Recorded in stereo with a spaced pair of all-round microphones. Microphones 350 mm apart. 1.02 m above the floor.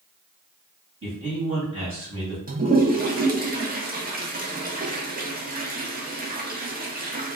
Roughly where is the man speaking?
Right.